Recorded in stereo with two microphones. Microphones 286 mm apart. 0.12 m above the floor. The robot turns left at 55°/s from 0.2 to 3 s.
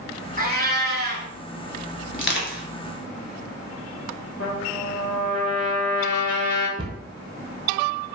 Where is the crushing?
40° left (ahead or behind), 0.8 m.